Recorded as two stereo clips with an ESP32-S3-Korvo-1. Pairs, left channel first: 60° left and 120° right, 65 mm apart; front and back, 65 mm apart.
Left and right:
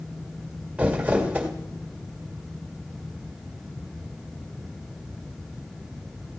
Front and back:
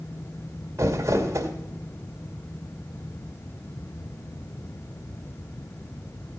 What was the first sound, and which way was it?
Crumpling, 175° left.